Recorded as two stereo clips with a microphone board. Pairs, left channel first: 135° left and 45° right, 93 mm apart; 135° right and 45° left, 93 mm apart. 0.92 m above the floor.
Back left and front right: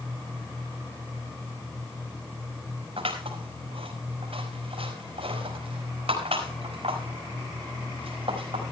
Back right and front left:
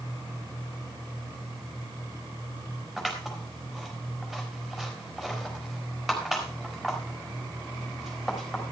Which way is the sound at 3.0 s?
45° right.